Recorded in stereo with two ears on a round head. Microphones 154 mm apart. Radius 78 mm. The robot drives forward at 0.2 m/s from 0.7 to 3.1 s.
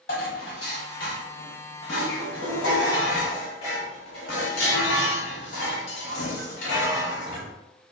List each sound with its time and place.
0.1 s dishes clattering: 55° left (ahead or behind), 1.3 m; by 7.5 s 75° left (ahead or behind), 1.1 m